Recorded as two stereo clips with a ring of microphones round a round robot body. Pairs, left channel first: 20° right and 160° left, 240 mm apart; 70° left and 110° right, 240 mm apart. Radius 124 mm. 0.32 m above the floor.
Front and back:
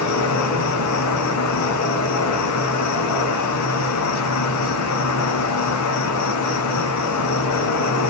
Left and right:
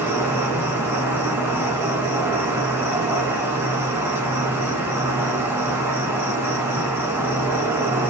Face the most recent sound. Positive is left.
turn(degrees=-30)